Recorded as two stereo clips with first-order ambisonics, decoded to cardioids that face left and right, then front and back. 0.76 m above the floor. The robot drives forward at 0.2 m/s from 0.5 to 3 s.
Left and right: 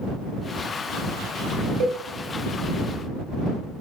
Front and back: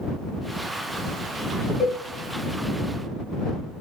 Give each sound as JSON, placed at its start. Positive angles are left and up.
{"t": 1.8, "sound": "a cowbell", "azimuth_deg": -85, "distance_m": 0.7}